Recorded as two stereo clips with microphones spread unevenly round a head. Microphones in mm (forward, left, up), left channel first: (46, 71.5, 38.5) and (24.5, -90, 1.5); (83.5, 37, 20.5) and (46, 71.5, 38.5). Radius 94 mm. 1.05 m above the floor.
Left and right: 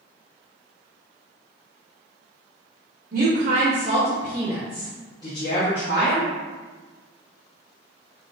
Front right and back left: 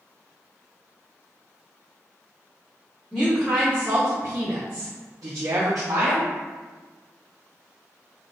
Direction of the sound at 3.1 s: 135° right.